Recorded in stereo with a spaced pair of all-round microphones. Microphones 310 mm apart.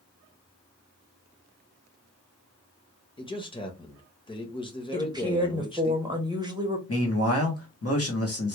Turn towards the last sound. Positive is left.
turn(degrees=50)  # may be behind; listen again after turning